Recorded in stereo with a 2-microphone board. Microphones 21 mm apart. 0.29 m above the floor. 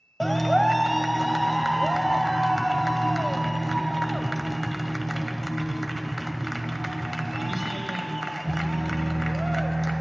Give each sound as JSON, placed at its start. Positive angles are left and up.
{"t": 0.2, "sound": "a clap", "side_deg": 5, "distance_m": 0.8}